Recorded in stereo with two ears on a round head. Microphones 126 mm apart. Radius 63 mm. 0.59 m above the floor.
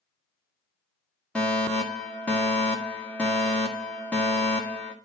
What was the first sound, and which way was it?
A fire alarm, 10° left (ahead or behind).